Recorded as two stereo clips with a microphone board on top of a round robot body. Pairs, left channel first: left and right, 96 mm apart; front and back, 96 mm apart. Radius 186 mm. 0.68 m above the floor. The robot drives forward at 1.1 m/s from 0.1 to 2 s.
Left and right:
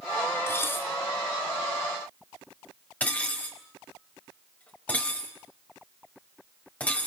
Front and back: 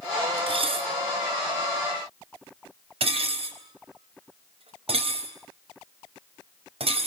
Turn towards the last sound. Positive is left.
turn(degrees=165)